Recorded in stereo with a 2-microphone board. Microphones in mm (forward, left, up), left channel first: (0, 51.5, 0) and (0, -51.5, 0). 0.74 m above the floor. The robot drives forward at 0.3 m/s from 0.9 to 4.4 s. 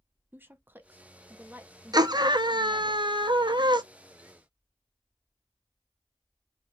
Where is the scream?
40° right (ahead or behind), 0.7 m; by 3.8 s 45° right (ahead or behind), 0.7 m.